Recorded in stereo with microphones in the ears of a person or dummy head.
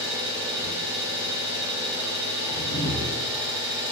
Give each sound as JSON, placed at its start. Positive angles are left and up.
{"t": 0.0, "sound": "an engine running", "side_deg": -10, "distance_m": 0.7}
{"t": 2.5, "sound": "a whoosh", "side_deg": 80, "distance_m": 1.1}